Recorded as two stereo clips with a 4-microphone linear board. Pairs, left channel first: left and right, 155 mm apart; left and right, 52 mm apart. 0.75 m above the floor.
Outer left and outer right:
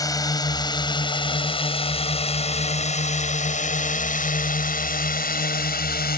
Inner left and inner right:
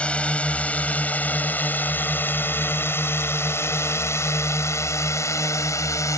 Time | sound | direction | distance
0.0 | a drone | 20° left (ahead or behind) | ?